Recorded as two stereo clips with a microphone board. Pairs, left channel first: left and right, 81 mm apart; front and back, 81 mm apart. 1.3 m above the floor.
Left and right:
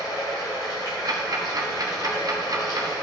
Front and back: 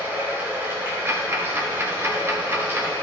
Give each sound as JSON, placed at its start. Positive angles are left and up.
{"t": 0.0, "sound": "running water", "azimuth_deg": 120, "distance_m": 2.5}
{"t": 1.1, "sound": "ticking", "azimuth_deg": -125, "distance_m": 1.1}